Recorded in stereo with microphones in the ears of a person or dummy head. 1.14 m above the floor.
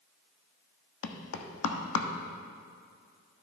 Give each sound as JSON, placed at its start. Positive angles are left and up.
{"t": 1.0, "sound": "knocking", "side_deg": 75, "distance_m": 1.0}